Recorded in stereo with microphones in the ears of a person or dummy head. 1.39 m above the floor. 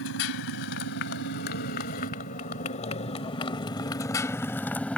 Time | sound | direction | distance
0.0 | a motorcycle | 75° left (ahead or behind) | ?